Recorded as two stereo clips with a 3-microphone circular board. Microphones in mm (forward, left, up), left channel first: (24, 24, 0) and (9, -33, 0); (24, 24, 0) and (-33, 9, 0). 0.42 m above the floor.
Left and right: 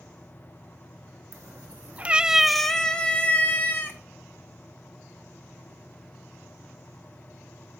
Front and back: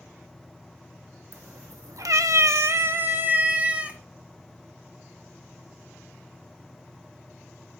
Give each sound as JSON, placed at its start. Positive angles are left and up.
{"t": 1.3, "sound": "a cat meowing", "azimuth_deg": -135, "distance_m": 0.8}